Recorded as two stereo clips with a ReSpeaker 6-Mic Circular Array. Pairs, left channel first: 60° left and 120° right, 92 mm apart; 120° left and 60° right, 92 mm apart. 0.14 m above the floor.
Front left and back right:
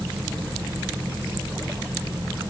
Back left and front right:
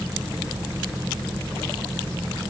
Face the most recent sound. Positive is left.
No sound to turn to.